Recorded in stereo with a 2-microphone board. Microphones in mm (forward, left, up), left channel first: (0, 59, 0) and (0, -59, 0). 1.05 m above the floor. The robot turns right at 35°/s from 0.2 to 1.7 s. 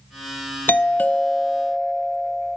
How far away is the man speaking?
I don't hear a man speaking.